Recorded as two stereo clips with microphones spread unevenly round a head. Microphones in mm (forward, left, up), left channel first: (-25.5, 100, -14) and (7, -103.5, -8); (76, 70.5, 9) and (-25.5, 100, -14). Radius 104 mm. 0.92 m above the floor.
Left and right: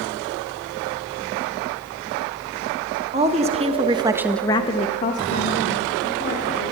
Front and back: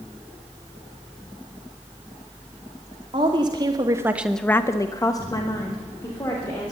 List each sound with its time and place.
3.1 s a woman speaking: 140° right, 2.0 m; by 6.7 s 45° left, 3.5 m